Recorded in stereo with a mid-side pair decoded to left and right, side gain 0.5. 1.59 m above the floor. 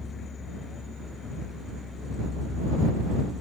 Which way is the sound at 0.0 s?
35° left.